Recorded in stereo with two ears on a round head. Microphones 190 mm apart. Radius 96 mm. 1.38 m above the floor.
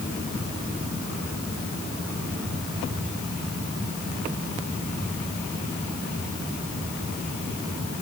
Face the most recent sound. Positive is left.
No sound to turn to.